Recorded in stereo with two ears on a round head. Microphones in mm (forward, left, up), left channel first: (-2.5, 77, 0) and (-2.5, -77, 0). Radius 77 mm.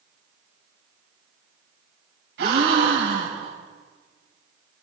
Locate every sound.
2.4 s a gasp: 75° right (ahead or behind), 4 m